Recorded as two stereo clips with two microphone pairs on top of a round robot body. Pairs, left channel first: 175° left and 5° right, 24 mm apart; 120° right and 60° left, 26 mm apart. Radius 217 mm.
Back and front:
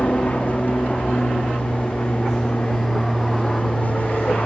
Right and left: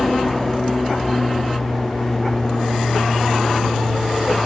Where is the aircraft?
160° left.